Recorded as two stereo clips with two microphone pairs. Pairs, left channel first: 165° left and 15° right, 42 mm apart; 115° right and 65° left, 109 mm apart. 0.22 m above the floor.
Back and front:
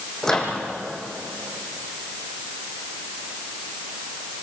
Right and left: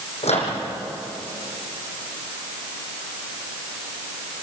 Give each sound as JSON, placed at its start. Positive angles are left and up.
{"t": 0.2, "sound": "a microwave", "azimuth_deg": -120, "distance_m": 7.0}